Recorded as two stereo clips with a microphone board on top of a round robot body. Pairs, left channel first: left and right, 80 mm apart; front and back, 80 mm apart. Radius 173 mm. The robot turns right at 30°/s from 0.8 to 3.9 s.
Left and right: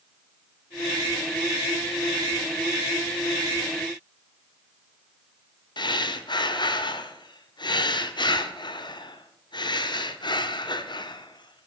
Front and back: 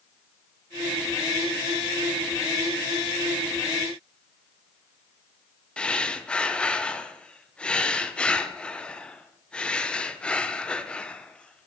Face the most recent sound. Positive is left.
turn(degrees=75)